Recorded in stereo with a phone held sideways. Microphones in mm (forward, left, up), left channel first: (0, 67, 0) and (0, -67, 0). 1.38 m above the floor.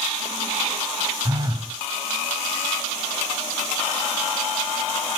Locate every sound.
1.2 s a phone buzzing: 30° right (ahead or behind), 1.4 m